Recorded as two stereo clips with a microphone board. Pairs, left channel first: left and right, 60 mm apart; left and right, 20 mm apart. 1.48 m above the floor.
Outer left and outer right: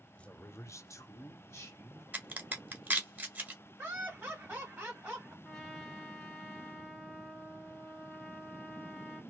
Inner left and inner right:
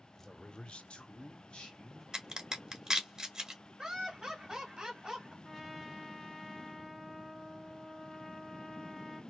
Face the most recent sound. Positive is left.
turn(degrees=5)  # may be behind; listen again after turning